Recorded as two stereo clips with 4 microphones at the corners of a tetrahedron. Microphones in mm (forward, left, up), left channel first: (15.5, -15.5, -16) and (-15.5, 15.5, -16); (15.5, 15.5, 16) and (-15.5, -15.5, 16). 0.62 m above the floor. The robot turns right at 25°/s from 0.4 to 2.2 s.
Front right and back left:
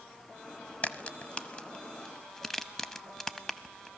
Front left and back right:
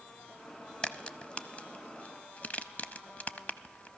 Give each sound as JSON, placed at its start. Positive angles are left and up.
{"t": 0.8, "sound": "a crack", "azimuth_deg": -10, "distance_m": 0.5}